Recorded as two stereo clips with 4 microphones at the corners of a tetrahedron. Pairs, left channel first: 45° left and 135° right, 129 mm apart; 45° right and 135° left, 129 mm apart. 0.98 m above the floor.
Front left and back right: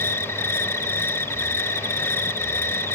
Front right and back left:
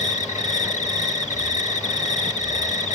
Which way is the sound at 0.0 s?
25° right.